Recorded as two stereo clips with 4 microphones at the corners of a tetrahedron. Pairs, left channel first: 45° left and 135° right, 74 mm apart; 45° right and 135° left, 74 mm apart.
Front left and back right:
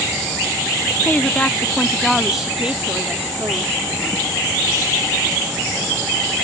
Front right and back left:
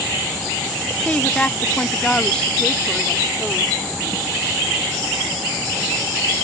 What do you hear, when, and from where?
1.0 s a woman speaking: 10° left; by 3.8 s 135° right